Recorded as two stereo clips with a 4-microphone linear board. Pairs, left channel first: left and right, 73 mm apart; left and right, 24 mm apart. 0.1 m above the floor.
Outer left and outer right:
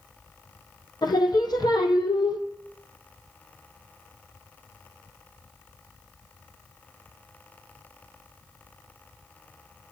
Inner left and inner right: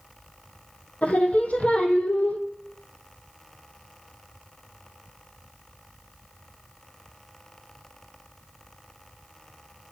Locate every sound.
1.0 s singing: 75° left (ahead or behind), 0.9 m